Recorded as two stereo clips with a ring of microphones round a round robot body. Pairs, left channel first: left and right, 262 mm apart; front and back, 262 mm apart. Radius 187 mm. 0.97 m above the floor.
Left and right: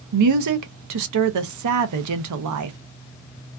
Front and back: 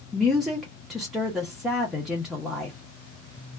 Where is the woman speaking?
90° right, 0.6 m.